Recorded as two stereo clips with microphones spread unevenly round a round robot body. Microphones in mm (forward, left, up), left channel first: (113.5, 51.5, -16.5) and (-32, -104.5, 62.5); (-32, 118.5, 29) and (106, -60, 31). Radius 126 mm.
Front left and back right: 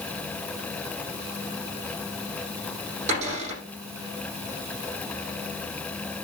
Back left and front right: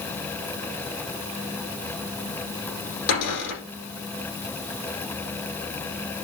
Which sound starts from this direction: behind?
A cupboard door, at 3.1 s.